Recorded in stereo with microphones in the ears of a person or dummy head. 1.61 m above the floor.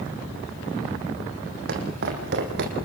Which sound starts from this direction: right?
Footsteps, at 1.7 s.